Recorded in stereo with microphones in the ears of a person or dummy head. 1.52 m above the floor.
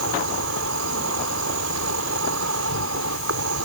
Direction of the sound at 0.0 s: 80° right.